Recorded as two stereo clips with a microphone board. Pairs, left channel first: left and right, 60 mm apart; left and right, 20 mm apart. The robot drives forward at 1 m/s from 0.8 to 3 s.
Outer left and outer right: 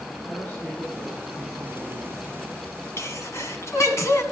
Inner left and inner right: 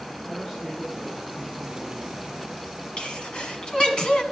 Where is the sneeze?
55° left (ahead or behind), 1.5 m.